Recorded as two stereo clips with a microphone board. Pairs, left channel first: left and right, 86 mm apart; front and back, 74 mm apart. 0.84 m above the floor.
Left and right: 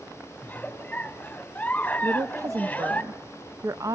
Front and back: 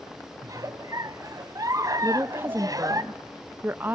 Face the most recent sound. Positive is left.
turn(degrees=-125)